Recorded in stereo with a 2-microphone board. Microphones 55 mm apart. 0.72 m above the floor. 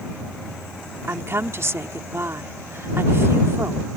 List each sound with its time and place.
1.1 s a woman speaking: 50° right (ahead or behind)